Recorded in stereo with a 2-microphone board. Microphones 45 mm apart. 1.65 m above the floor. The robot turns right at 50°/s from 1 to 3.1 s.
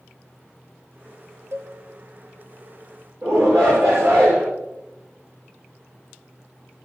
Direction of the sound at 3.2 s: 65° right (ahead or behind).